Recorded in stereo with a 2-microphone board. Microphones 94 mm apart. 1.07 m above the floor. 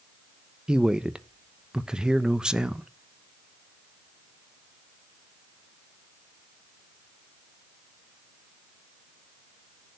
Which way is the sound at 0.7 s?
10° right (ahead or behind).